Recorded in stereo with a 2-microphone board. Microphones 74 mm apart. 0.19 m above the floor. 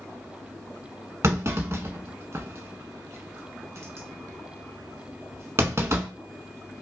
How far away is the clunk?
About 0.7 m.